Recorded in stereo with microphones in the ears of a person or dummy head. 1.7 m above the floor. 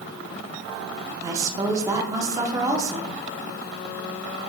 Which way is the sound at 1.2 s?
15° right (ahead or behind).